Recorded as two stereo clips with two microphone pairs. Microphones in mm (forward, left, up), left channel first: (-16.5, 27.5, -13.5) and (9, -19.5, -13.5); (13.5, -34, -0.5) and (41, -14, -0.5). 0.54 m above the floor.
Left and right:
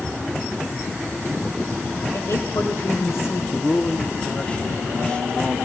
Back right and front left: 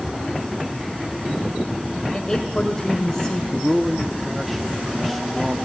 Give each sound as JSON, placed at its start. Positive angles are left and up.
{"t": 2.1, "sound": "a woman speaking", "azimuth_deg": 145, "distance_m": 2.0}
{"t": 3.5, "sound": "a man speaking", "azimuth_deg": 120, "distance_m": 0.7}